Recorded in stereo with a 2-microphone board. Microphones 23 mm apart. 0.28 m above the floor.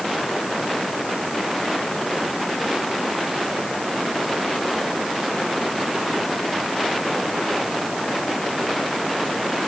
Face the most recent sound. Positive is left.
No sound to turn to.